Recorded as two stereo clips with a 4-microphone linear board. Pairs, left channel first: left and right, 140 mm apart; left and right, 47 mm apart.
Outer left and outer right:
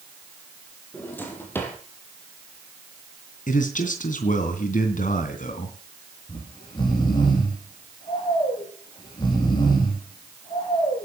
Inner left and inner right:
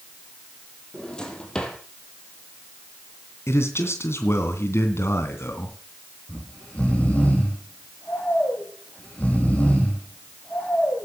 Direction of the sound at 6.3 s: 30° left (ahead or behind).